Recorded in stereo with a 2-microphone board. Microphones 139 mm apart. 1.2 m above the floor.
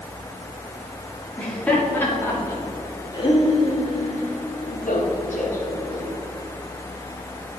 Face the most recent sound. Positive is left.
turn(degrees=80)